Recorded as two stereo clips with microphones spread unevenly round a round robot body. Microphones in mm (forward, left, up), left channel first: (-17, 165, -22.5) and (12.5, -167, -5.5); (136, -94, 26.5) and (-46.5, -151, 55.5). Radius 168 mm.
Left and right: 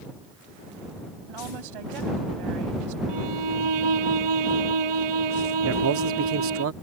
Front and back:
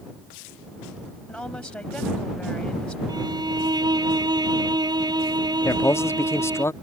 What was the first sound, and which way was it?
A woman speaking, 65° right.